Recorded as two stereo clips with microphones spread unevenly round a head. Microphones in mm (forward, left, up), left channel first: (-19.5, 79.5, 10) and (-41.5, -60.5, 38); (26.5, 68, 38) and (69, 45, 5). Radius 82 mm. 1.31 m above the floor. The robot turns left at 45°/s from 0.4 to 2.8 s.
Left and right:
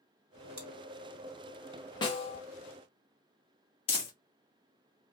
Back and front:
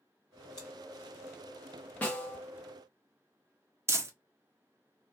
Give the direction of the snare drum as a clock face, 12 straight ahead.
7 o'clock.